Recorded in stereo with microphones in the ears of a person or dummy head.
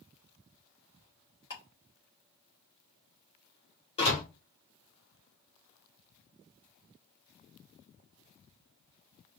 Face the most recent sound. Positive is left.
turn(degrees=30)  # may be behind; listen again after turning